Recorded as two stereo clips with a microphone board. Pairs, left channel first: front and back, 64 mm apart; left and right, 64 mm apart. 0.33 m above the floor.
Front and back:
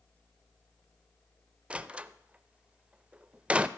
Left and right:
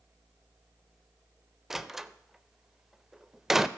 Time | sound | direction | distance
1.7 | a door slam | 160° right | 0.5 m